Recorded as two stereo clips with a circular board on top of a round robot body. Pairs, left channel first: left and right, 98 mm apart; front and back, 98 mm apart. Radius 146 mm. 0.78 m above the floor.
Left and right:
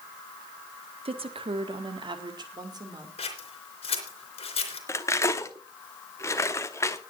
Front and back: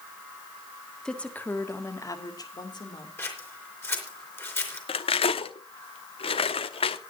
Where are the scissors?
65° left, 3.5 m.